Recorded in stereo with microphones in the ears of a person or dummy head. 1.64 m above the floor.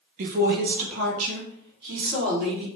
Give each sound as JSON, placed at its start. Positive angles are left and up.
{"t": 0.2, "sound": "a woman speaking", "side_deg": -45, "distance_m": 0.9}